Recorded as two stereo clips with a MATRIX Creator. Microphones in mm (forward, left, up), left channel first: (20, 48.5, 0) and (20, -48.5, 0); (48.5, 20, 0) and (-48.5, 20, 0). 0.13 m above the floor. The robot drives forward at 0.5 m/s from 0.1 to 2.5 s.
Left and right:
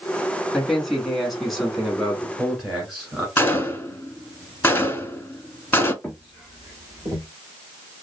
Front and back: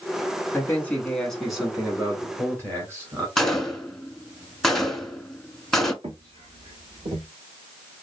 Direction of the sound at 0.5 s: 5° left.